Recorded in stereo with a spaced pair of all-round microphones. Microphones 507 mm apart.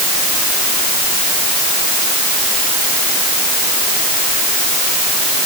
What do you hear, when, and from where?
Only background noise.